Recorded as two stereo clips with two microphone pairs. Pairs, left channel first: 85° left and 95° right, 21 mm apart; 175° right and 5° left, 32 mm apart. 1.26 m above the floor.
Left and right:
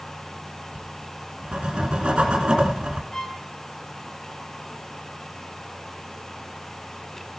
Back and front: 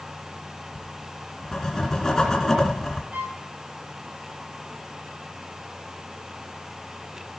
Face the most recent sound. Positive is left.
turn(degrees=20)